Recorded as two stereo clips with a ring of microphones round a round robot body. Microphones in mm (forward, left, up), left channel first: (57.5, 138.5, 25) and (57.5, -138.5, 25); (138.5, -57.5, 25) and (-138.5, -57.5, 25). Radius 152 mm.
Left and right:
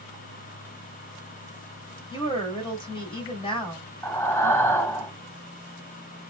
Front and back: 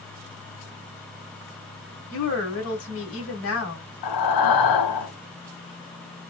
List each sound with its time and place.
2.1 s a woman speaking: 20° left, 1.9 m
4.0 s breathing: 10° left, 0.9 m